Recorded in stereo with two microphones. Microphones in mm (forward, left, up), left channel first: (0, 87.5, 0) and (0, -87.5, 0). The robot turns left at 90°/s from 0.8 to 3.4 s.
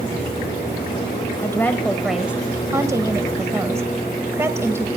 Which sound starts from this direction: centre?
A woman speaking, at 1.4 s.